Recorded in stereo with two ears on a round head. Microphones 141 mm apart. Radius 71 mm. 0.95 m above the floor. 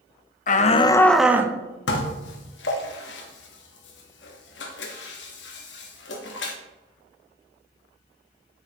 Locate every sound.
0.5 s a shout: 50° left (ahead or behind), 0.6 m; by 1.6 s 20° right (ahead or behind), 0.7 m
1.9 s dishes clattering: 80° left, 1.0 m